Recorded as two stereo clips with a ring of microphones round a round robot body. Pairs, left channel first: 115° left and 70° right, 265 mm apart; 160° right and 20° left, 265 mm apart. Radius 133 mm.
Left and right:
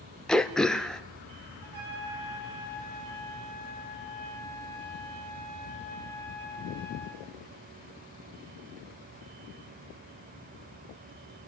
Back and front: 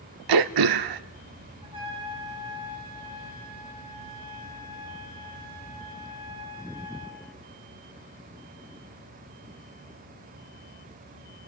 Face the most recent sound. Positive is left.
turn(degrees=-50)